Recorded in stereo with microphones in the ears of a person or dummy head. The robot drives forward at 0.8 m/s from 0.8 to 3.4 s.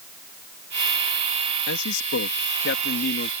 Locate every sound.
1.7 s a man speaking: 80° left; by 3.3 s 50° left (ahead or behind)